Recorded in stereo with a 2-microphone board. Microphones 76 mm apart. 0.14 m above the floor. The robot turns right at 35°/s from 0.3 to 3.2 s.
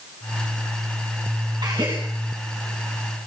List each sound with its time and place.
1.6 s a gasp: 65° right (ahead or behind), 9 m; by 2.0 s 55° right (ahead or behind), 9 m